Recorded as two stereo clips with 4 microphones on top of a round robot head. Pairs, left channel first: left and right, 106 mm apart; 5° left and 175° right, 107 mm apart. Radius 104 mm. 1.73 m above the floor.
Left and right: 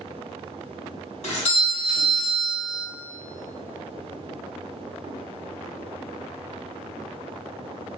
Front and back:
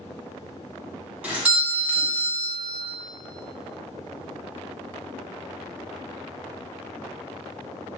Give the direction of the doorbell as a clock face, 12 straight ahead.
8 o'clock.